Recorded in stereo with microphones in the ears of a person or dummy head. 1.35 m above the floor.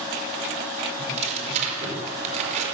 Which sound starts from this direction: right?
Tearing paper, at 1.0 s.